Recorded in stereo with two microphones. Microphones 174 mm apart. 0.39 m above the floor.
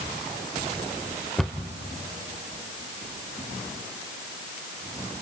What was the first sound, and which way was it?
A cupboard door, 5° left (ahead or behind).